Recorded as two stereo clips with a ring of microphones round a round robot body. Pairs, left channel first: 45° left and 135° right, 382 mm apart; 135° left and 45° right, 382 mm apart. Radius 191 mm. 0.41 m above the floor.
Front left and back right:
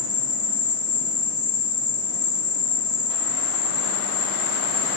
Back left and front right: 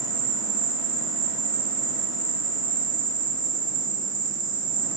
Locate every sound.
0.0 s an insect: 55° left, 1.0 m